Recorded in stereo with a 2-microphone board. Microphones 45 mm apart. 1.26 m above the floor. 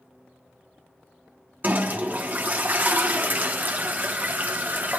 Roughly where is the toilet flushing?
Right.